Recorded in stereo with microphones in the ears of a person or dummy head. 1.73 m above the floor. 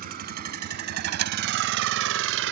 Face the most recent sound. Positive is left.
turn(degrees=-70)  # may be behind; listen again after turning